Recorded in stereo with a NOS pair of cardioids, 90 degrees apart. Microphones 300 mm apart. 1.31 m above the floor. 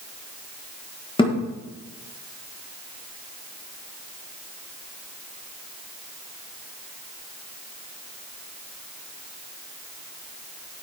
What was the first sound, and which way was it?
A thud, 15° left.